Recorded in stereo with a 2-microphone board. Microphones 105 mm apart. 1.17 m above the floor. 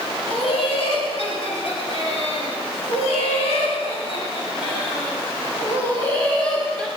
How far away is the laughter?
About 4.5 m.